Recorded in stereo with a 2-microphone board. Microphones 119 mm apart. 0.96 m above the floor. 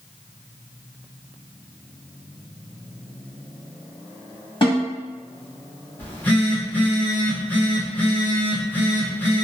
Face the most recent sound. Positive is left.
turn(degrees=15)  # may be behind; listen again after turning